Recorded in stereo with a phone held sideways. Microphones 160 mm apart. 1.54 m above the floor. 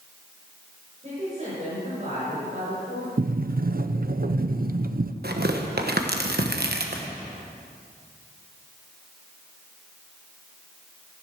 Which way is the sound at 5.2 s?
75° right (ahead or behind).